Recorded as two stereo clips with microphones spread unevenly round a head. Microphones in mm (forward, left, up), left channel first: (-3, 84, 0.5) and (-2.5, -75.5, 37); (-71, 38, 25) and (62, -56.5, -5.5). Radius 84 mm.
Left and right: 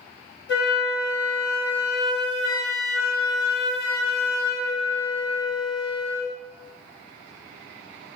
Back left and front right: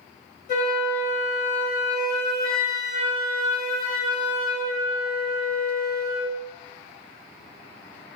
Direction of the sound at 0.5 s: 110° left.